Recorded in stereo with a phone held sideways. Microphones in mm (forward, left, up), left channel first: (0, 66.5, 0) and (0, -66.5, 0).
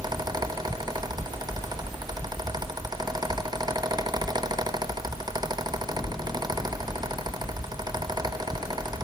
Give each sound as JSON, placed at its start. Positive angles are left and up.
{"t": 0.0, "sound": "a fan", "side_deg": -30, "distance_m": 0.8}